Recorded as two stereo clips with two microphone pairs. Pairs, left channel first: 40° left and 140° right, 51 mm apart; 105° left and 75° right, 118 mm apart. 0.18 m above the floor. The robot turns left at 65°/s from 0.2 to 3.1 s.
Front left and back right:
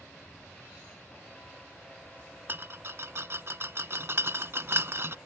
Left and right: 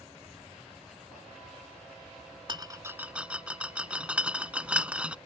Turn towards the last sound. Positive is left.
turn(degrees=-150)